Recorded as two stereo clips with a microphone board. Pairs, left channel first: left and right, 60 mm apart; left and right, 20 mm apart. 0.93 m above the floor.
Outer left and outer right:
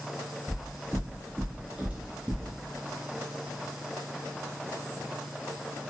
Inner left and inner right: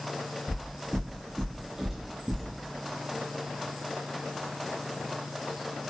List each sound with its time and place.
0.5 s footsteps: 50° right (ahead or behind), 1.8 m; by 2.5 s 5° right (ahead or behind), 1.0 m